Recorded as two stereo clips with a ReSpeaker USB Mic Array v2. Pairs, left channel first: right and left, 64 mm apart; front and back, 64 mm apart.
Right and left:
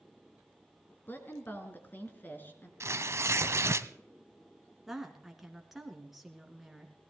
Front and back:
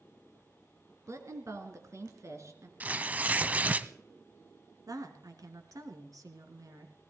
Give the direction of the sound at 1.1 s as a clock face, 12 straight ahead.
5 o'clock.